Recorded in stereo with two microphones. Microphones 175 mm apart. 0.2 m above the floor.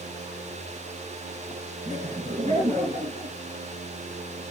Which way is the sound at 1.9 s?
40° right (ahead or behind).